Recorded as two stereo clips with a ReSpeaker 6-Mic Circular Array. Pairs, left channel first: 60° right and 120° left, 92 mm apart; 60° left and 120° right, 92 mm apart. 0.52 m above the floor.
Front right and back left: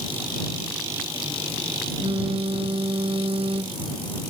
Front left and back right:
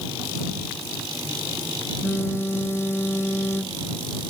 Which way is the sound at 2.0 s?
125° left.